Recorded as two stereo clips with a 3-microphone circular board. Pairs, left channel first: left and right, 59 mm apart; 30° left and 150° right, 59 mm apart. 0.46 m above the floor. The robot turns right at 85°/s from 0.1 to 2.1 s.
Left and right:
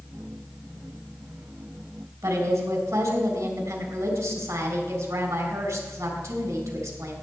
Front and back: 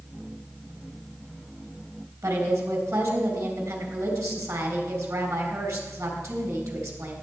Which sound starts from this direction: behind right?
A woman speaking, at 2.2 s.